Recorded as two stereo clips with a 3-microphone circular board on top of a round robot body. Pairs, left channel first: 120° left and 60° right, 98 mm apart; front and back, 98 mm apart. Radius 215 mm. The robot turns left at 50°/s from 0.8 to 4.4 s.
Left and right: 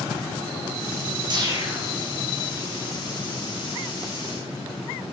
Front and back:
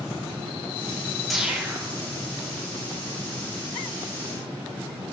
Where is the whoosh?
90° right, 2.5 m; by 1.9 s 120° right, 2.5 m.